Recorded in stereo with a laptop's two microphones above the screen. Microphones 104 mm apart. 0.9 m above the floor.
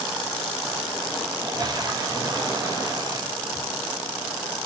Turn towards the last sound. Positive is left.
turn(degrees=-35)  # may be behind; listen again after turning